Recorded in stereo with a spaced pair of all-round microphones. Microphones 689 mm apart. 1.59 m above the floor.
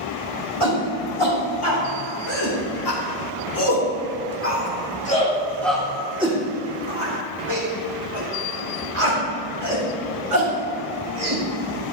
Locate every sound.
0.6 s a shout: 50° left (ahead or behind), 3.5 m; by 11.4 s 65° right (ahead or behind), 3 m